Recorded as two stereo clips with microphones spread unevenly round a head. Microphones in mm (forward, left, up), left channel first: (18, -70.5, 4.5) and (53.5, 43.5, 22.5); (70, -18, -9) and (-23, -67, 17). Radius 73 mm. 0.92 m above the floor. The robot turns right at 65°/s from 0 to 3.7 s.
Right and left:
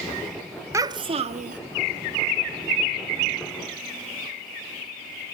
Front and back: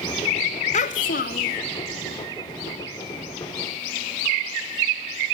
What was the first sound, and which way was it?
A child speaking, 5° left.